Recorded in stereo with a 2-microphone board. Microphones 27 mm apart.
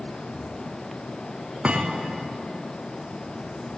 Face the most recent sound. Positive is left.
turn(degrees=-45)  # may be behind; listen again after turning